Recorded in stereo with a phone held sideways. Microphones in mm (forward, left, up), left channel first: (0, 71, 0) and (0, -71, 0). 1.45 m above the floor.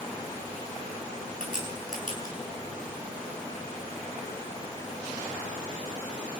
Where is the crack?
65° left (ahead or behind), 8.5 m.